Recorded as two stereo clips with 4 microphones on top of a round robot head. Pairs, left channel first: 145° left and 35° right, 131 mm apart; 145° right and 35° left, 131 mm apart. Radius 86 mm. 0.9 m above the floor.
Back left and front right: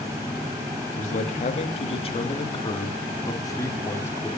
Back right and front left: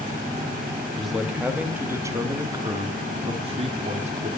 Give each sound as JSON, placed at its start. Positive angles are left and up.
{"t": 1.0, "sound": "a man speaking", "azimuth_deg": 125, "distance_m": 2.0}